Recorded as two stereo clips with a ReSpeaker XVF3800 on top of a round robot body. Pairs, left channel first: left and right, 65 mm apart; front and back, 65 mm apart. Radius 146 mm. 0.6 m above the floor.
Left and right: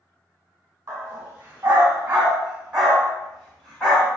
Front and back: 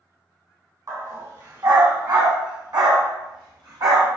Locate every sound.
0.9 s a dog barking: 145° right, 2.5 m; by 4.1 s 170° left, 2 m